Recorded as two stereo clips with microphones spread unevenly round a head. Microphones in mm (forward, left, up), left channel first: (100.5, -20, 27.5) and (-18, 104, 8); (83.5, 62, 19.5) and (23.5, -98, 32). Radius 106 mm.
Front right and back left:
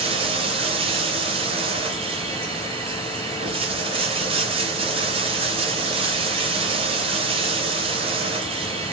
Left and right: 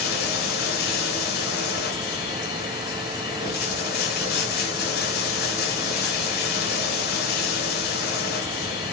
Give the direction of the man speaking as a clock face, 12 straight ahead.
No man speaking in this recording.